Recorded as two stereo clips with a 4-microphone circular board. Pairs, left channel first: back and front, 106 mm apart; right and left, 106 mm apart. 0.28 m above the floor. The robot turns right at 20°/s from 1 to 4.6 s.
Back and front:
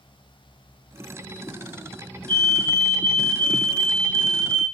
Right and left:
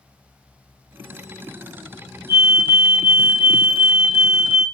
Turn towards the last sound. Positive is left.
turn(degrees=165)